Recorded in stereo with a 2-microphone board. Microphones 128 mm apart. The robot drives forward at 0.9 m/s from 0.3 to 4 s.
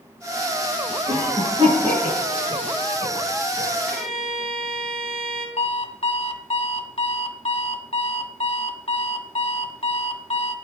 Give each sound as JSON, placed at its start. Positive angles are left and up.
{"t": 1.1, "sound": "a cough", "side_deg": -35, "distance_m": 6.0}
{"t": 3.9, "sound": "a violin", "side_deg": 5, "distance_m": 3.0}
{"t": 5.6, "sound": "an alarm clock", "side_deg": 45, "distance_m": 1.4}